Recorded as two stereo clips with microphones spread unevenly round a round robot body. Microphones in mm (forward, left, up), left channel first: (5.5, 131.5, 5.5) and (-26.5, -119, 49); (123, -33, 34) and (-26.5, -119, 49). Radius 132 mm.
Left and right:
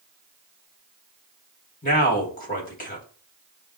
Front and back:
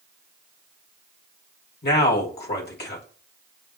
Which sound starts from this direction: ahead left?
A man speaking, at 1.8 s.